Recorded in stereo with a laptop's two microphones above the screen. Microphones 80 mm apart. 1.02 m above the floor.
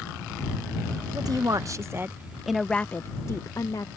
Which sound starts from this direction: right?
A woman speaking, at 1.1 s.